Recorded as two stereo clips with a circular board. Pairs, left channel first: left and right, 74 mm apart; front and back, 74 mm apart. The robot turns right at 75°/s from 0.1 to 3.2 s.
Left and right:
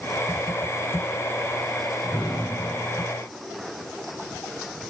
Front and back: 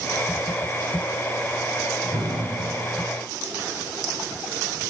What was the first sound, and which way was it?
An explosion, 165° left.